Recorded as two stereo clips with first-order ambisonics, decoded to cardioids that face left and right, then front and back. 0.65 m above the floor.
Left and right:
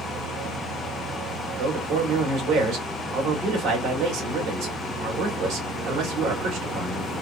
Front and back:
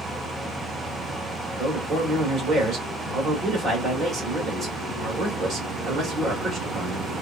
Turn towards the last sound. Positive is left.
turn(degrees=-120)